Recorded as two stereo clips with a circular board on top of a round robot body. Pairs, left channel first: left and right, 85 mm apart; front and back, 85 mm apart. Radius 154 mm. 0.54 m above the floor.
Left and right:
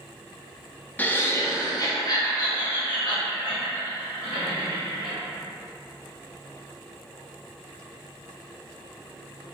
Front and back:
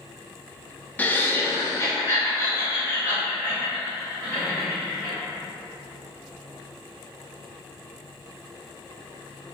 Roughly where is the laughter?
Ahead left.